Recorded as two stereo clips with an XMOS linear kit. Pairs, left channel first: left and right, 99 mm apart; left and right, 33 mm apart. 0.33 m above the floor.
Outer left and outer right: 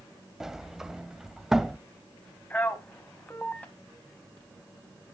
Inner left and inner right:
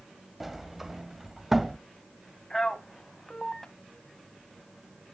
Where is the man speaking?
15° left (ahead or behind), 3 m.